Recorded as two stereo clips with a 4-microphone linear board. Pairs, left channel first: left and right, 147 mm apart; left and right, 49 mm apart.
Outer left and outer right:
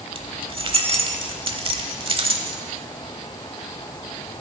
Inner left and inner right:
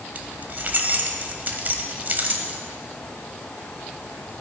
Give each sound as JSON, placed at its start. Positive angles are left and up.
{"t": 0.1, "sound": "keys jangling", "side_deg": -40, "distance_m": 0.9}